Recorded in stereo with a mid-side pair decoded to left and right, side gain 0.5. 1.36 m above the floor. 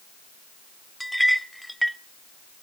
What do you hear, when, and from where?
1.0 s a clink: straight ahead, 0.8 m